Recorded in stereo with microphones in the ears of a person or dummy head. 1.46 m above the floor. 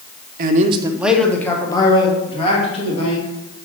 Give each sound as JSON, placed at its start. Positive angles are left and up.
{"t": 0.4, "sound": "a man speaking", "side_deg": -55, "distance_m": 0.7}